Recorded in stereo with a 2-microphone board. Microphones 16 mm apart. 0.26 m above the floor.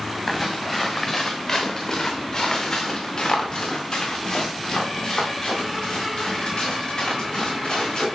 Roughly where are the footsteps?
Centre.